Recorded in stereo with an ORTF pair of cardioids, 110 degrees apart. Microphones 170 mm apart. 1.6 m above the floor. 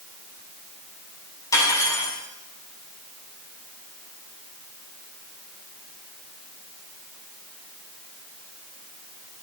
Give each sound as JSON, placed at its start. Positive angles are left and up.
{"t": 1.5, "sound": "cutlery clinking", "azimuth_deg": 20, "distance_m": 6.5}